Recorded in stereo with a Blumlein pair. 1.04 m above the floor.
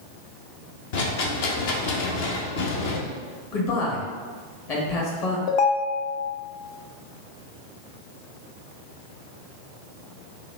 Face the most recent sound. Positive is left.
turn(degrees=40)